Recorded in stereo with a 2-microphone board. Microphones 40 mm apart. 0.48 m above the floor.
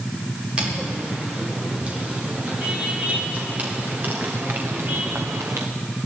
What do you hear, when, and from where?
0.6 s footsteps: 25° right (ahead or behind), 7 m; by 5.7 s 70° right (ahead or behind), 2.0 m